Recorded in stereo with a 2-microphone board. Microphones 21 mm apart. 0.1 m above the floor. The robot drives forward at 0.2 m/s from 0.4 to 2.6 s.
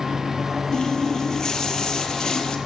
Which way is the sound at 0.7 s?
35° left (ahead or behind).